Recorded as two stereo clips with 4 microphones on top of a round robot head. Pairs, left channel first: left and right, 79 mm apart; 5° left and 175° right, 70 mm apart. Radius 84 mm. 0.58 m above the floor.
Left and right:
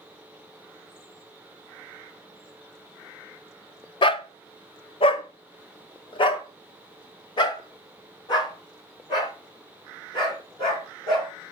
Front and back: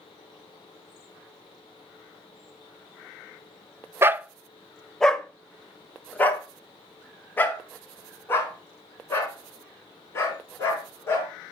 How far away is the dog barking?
About 0.5 m.